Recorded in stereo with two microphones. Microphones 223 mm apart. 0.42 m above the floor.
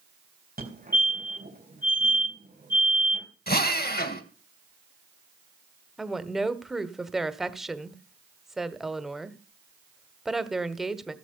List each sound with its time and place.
0.6 s a fire alarm: 40° right (ahead or behind), 3.5 m
3.5 s a drill: 45° left (ahead or behind), 1.5 m
6.0 s a woman speaking: centre (ahead or behind), 1.2 m